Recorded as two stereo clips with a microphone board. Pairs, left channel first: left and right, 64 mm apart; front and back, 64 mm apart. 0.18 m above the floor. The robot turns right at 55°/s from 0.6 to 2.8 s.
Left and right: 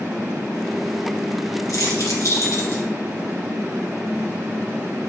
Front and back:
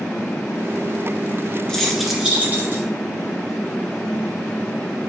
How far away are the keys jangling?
About 2 m.